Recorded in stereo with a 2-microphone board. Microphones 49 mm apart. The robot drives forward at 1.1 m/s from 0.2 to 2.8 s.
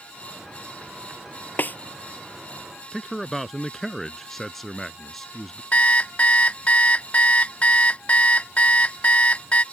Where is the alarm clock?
30° left (ahead or behind).